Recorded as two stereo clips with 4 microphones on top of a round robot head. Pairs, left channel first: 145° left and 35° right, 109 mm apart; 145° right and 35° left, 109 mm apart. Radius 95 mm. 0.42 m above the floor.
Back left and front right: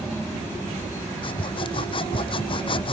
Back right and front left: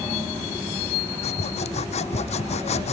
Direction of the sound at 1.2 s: 170° right.